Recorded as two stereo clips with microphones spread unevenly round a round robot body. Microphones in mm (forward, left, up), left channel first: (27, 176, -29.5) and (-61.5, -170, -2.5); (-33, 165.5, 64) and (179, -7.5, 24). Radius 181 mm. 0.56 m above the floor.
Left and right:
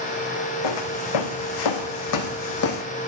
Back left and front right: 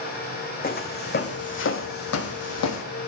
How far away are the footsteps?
About 2 m.